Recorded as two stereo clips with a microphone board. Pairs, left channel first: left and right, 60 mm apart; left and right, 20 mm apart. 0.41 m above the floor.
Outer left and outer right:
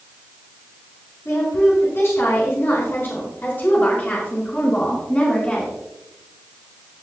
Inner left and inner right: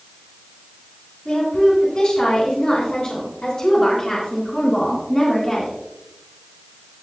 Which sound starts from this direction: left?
A woman speaking, at 1.2 s.